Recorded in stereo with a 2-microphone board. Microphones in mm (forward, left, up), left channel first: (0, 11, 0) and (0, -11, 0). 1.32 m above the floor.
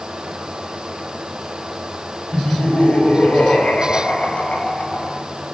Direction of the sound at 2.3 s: 75° left (ahead or behind).